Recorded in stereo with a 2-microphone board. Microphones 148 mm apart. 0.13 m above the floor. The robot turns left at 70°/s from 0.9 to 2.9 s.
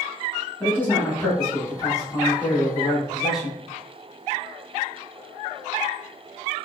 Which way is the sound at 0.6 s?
15° left (ahead or behind).